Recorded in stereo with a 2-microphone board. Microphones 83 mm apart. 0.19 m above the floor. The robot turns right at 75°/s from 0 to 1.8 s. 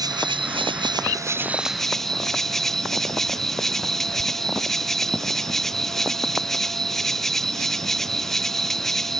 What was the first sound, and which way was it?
An insect, 130° right.